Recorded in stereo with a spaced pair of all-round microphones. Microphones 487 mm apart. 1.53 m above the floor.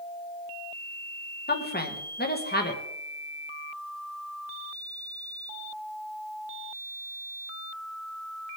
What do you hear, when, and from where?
1.5 s a woman speaking: 20° left (ahead or behind), 1.8 m